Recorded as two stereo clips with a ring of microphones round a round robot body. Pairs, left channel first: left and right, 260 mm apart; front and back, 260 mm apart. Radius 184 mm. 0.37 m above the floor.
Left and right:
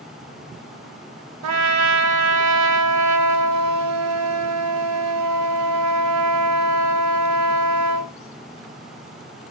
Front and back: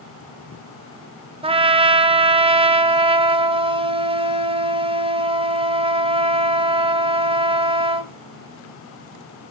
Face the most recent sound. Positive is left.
turn(degrees=-110)